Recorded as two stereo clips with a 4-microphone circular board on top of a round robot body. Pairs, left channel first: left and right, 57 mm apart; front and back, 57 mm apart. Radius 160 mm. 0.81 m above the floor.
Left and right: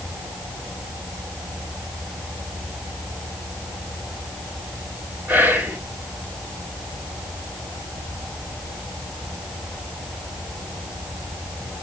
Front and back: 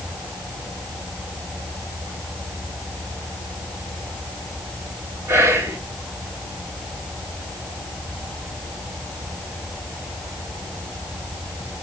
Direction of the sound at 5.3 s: 145° right.